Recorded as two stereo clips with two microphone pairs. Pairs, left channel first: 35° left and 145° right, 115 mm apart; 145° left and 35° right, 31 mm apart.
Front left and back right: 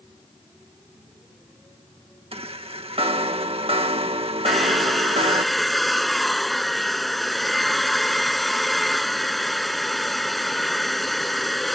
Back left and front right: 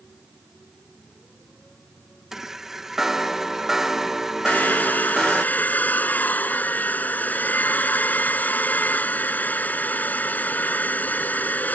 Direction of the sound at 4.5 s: 125° left.